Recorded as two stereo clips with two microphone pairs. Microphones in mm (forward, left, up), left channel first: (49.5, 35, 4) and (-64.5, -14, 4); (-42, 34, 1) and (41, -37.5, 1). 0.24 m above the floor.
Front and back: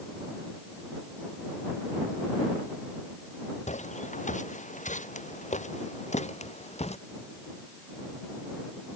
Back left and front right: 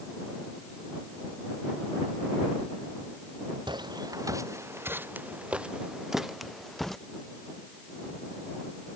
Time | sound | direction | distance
3.7 | footsteps | 5° left | ?